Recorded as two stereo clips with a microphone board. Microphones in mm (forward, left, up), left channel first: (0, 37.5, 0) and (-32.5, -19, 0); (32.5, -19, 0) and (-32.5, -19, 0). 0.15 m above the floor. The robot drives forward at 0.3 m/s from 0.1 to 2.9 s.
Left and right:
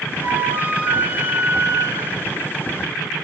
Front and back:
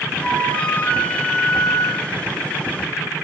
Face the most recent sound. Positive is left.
turn(degrees=-100)